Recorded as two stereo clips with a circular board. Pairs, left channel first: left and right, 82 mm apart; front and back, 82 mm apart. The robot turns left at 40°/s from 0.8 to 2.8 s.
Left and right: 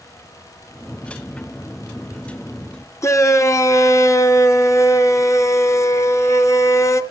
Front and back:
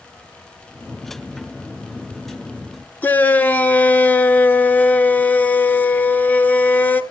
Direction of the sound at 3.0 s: 60° left.